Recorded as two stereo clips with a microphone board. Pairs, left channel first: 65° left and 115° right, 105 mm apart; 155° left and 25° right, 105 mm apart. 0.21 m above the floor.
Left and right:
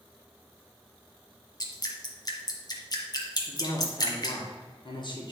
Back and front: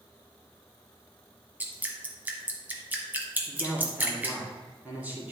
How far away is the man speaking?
About 2.5 m.